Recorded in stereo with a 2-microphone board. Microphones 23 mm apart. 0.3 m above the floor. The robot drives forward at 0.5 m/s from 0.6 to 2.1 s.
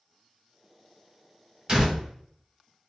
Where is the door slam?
30° right (ahead or behind), 1.1 m.